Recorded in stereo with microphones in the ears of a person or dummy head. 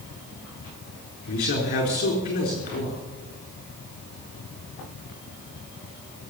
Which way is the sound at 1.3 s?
40° left (ahead or behind).